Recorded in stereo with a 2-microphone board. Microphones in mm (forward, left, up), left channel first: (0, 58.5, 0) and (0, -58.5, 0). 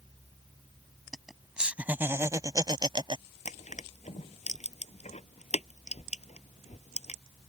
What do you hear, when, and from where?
1.1 s laughter: centre (ahead or behind); by 3.2 s 50° right (ahead or behind)
3.5 s crushing: 75° left (ahead or behind)